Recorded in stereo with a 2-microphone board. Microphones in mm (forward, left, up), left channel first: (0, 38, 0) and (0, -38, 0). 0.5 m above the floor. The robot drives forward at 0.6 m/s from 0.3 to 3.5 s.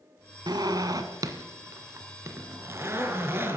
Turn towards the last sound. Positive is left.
turn(degrees=-30)  # may be behind; listen again after turning